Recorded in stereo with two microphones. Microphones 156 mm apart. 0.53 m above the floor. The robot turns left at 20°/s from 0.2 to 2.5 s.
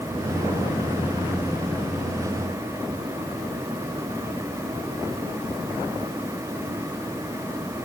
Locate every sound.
Only background noise.